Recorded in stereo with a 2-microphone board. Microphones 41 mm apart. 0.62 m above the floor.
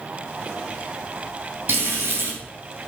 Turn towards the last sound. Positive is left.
turn(degrees=-75)  # may be behind; listen again after turning